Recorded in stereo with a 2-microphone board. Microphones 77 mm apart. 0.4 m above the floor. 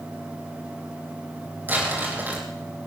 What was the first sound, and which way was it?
Crumpling, 25° right (ahead or behind).